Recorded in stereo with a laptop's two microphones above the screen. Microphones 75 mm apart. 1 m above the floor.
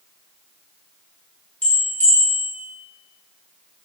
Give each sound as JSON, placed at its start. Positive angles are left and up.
{"t": 1.6, "sound": "a bell", "side_deg": 20, "distance_m": 0.9}